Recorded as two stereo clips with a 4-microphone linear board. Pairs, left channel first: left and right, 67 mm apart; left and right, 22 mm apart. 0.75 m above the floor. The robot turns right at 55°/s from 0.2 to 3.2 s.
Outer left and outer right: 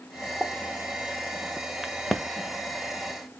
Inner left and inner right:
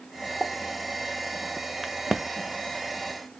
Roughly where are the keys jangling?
I don't hear keys jangling.